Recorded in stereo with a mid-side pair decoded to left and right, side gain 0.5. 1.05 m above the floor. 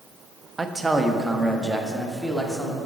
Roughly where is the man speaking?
Ahead right.